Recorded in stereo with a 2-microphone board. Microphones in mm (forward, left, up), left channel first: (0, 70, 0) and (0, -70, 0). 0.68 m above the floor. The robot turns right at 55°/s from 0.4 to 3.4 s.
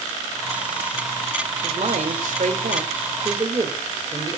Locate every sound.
1.6 s a man speaking: 125° right, 2.5 m; by 4.4 s 30° right, 2.5 m